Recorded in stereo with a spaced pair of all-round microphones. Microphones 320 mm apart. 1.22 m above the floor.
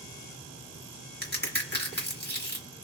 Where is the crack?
30° left (ahead or behind), 1.7 m.